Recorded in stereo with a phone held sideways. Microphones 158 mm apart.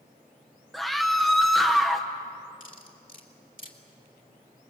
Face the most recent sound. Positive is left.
turn(degrees=60)  # may be behind; listen again after turning